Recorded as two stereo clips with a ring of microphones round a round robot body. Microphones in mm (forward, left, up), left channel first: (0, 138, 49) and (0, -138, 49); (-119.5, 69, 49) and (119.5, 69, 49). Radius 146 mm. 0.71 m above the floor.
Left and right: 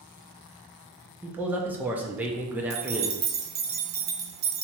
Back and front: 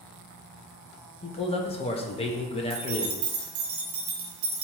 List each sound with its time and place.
1.2 s a man speaking: 165° right, 0.5 m
2.7 s keys jangling: 35° right, 0.6 m